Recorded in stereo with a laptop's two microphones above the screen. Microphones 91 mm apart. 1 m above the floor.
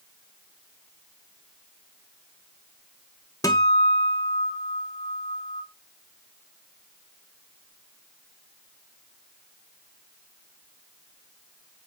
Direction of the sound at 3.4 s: 40° left (ahead or behind).